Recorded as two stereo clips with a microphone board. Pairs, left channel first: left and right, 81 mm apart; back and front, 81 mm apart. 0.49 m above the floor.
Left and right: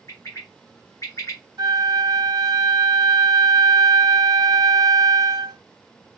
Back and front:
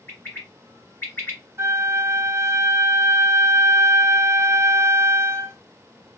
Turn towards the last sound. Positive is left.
turn(degrees=-55)